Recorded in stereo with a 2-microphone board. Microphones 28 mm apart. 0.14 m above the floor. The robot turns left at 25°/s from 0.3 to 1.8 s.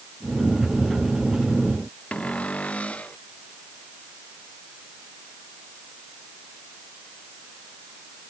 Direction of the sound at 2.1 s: 55° left (ahead or behind).